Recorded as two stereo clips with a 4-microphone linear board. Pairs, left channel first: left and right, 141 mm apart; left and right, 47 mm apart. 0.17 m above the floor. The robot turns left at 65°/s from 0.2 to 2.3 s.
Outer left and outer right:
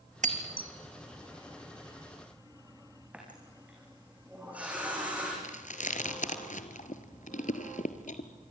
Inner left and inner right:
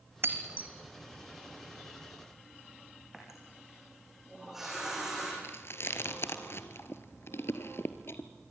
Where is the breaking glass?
65° right (ahead or behind), 1.5 m; by 0.7 s 35° right (ahead or behind), 1.5 m.